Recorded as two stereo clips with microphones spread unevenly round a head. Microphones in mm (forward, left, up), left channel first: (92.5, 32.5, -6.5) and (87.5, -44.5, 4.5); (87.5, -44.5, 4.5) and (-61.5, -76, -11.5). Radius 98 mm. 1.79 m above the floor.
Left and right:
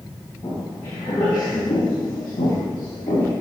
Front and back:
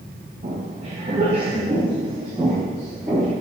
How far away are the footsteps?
About 2.5 m.